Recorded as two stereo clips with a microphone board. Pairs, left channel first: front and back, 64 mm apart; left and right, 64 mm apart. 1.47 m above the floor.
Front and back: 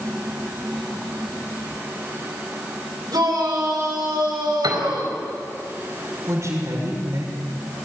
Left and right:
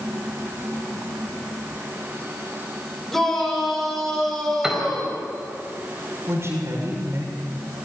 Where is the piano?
170° right, 4 m.